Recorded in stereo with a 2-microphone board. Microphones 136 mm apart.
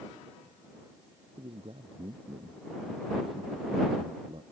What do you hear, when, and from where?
1.4 s a man speaking: 40° right (ahead or behind)